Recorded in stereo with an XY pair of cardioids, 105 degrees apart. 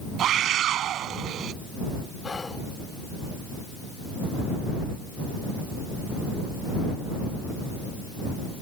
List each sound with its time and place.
0.2 s a scream: 70° right
2.2 s whispering: 30° left